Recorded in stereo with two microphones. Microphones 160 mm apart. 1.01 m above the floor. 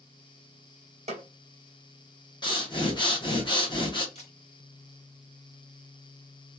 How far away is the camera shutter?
About 1.1 m.